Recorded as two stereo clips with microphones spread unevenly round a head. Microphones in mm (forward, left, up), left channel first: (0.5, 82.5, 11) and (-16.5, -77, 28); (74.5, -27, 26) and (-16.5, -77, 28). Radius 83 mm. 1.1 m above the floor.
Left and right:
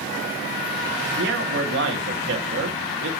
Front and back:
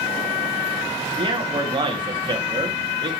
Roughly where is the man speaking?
Right.